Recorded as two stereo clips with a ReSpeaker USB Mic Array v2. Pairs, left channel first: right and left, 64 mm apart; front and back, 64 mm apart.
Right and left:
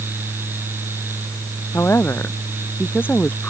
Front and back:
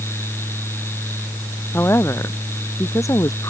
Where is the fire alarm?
I don't hear a fire alarm.